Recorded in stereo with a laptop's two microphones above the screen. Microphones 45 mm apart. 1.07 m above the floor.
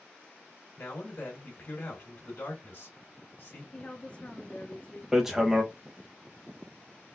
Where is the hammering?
10° right (ahead or behind), 0.6 m.